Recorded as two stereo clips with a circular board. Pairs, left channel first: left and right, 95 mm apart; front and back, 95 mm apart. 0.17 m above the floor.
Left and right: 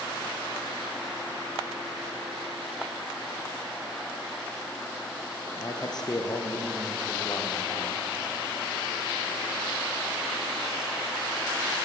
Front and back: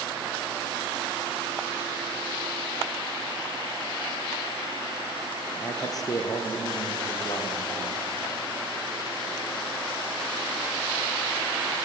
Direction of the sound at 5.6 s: 50° left.